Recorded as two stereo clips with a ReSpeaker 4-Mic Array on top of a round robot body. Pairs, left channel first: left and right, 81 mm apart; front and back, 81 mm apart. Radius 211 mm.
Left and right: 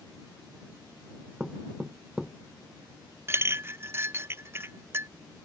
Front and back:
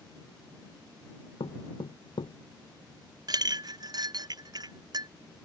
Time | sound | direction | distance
1.4 | knocking | 5° right | ?
3.3 | a clink | 145° right | ?